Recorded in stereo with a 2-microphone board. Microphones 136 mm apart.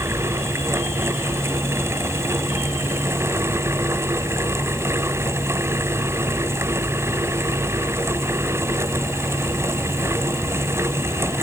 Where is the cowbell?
No cowbell in this recording.